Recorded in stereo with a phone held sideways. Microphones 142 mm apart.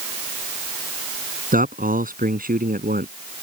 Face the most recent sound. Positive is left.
turn(degrees=-80)